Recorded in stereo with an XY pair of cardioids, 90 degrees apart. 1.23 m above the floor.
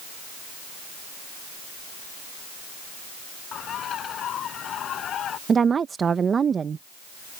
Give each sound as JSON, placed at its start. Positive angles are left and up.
{"t": 3.5, "sound": "a bird", "azimuth_deg": 70}
{"t": 5.5, "sound": "a woman speaking", "azimuth_deg": -45}